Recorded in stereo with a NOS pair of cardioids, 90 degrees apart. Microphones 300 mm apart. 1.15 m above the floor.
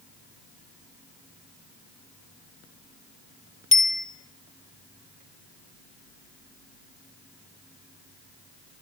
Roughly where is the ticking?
No ticking in this recording.